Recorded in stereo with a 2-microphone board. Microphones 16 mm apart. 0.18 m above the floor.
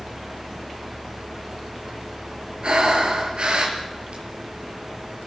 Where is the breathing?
70° right (ahead or behind), 4.5 m.